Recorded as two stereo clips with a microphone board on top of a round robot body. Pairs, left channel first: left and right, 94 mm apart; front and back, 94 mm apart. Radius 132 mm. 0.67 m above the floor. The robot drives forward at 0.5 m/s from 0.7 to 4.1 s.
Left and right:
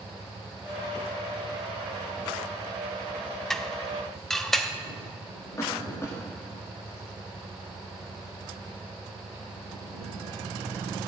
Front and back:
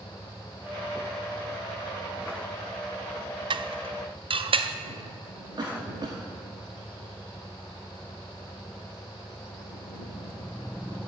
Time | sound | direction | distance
3.5 | dishes clattering | 175° left | 0.7 m
5.6 | a cough | 145° left | 1.9 m